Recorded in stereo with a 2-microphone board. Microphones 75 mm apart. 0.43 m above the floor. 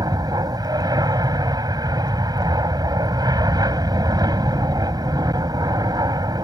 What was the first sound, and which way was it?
An aircraft, 60° right (ahead or behind).